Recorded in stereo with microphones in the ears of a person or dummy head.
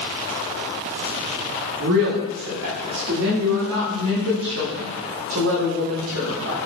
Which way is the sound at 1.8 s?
70° right (ahead or behind).